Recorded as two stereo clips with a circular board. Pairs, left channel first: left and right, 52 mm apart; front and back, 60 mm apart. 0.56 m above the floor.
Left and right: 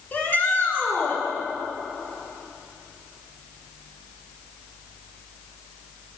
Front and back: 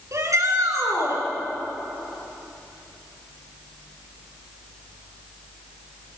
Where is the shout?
145° left, 9 m.